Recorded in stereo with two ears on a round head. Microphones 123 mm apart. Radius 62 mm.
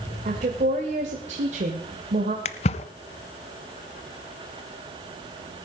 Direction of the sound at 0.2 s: 50° right (ahead or behind).